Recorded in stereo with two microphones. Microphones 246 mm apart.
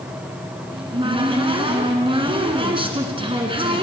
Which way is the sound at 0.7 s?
20° right (ahead or behind).